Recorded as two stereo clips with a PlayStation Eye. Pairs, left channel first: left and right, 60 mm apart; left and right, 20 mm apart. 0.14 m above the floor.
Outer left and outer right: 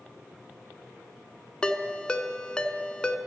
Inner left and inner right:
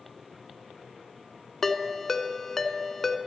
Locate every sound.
1.6 s a ringtone: 15° left (ahead or behind), 0.5 m